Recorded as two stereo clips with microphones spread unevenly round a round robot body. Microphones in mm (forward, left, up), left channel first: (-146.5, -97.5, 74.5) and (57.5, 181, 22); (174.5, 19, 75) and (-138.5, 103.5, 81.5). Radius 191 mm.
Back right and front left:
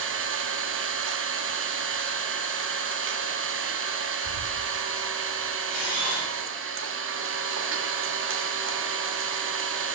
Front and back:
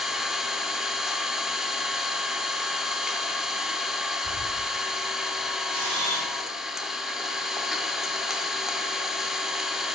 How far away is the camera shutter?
About 3 m.